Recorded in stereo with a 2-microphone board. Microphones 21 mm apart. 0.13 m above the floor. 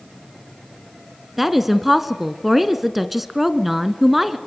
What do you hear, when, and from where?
1.4 s a woman speaking: 10° right (ahead or behind), 1.3 m